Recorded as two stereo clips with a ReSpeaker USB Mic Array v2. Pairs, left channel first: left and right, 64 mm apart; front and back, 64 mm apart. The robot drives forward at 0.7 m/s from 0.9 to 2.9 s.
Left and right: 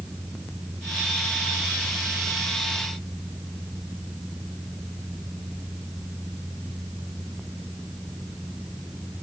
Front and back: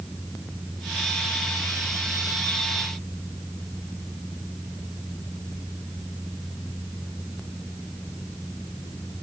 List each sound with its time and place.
Only background noise.